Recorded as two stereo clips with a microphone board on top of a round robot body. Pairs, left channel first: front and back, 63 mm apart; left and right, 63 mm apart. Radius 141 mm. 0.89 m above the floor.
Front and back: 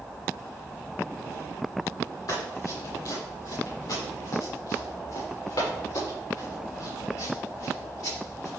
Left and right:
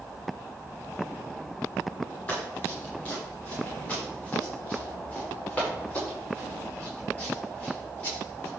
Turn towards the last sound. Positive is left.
turn(degrees=20)